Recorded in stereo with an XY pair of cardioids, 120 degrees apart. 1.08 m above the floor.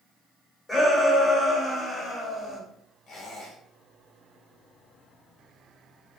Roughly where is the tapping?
I don't hear tapping.